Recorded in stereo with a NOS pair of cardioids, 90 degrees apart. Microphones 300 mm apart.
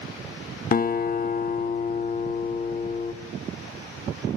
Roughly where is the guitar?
Ahead left.